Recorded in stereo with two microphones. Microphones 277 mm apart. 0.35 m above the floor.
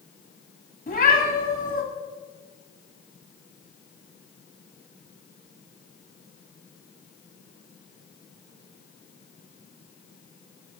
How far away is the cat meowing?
About 1.2 m.